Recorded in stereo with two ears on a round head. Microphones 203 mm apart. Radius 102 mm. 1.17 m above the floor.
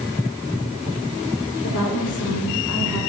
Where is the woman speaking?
75° left (ahead or behind), 4 m; by 3.0 s 80° left, 3.5 m.